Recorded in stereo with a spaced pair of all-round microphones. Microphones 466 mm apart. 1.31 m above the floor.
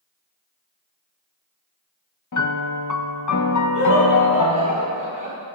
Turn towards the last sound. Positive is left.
turn(degrees=-15)  # may be behind; listen again after turning